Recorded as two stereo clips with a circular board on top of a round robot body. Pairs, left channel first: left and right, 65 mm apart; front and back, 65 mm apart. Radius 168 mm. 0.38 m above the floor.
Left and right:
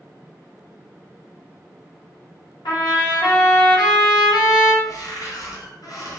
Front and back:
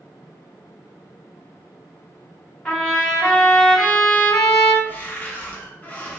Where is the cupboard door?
65° left, 0.6 m.